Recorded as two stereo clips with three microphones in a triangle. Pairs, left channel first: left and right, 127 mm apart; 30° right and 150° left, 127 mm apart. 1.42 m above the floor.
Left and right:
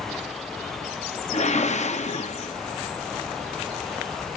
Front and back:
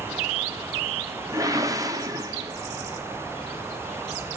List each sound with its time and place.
1.3 s a whoosh: 90° left, 0.6 m